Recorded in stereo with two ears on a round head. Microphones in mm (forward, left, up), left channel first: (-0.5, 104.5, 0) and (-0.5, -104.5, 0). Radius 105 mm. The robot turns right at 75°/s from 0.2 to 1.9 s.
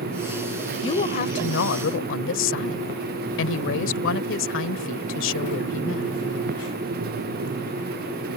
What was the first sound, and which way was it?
A woman speaking, 25° left.